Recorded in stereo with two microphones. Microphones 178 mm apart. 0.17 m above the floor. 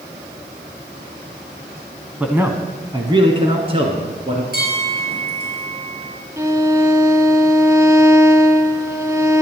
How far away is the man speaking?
About 1.1 m.